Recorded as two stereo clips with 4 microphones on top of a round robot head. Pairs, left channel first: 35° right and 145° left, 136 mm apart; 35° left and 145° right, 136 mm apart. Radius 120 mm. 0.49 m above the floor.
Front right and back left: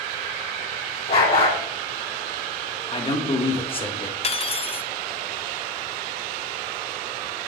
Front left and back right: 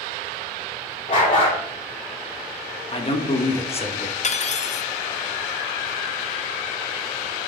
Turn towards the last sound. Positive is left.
turn(degrees=5)